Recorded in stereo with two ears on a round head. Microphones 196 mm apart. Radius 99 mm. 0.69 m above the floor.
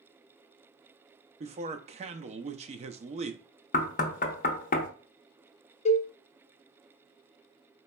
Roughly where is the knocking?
Left.